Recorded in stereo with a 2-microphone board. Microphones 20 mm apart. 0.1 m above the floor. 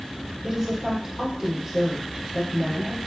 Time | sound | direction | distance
0.4 | a woman speaking | 15° right (ahead or behind) | 4 m